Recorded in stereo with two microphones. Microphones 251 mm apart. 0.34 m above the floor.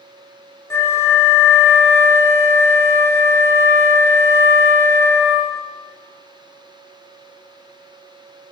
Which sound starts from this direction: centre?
A flute, at 0.7 s.